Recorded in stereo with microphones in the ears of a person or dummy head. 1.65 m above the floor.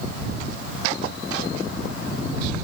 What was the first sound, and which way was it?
Only background noise.